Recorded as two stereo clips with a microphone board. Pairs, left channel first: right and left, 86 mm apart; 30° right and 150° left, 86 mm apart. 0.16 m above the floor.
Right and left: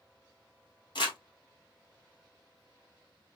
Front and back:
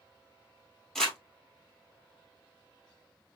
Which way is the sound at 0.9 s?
115° right.